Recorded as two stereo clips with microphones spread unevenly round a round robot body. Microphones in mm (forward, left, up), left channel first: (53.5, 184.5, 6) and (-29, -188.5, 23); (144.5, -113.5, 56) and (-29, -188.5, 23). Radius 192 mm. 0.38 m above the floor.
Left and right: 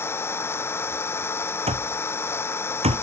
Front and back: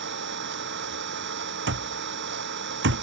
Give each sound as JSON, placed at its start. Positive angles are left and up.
{"t": 0.0, "sound": "an engine running", "azimuth_deg": 160}
{"t": 1.7, "sound": "an alarm clock", "azimuth_deg": -175}